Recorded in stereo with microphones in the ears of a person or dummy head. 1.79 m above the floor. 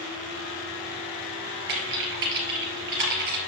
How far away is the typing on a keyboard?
About 2.5 m.